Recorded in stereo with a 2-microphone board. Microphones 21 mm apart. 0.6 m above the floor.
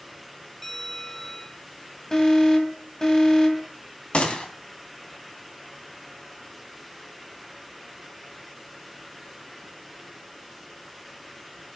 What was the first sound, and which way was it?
A bell, 15° left (ahead or behind).